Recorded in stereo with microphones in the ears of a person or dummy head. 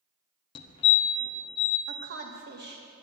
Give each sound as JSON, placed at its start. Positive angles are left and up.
{"t": 0.6, "sound": "a fire alarm", "side_deg": 30, "distance_m": 0.9}
{"t": 1.9, "sound": "a woman speaking", "side_deg": -60, "distance_m": 1.5}